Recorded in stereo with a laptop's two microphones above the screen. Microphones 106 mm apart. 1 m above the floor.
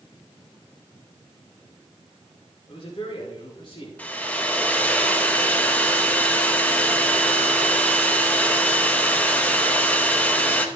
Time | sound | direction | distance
2.7 | a man speaking | 55° left (ahead or behind) | 3.5 m
4.0 | a hair dryer | 15° left (ahead or behind) | 0.9 m